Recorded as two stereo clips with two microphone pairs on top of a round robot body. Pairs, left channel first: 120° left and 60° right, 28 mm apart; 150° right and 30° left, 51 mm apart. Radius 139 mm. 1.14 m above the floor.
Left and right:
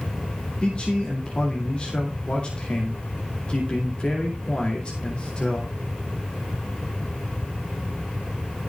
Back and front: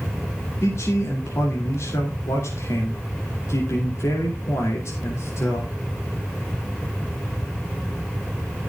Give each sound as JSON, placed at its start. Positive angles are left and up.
{"t": 0.6, "sound": "a man speaking", "azimuth_deg": 180, "distance_m": 2.5}